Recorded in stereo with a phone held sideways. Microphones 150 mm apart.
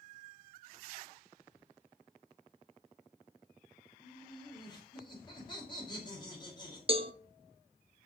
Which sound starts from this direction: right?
A cowbell, at 6.9 s.